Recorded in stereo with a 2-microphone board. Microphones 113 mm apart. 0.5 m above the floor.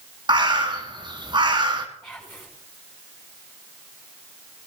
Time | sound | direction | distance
0.3 | a bird | 45° right (ahead or behind) | 1.5 m
2.0 | whispering | 15° left (ahead or behind) | 2.5 m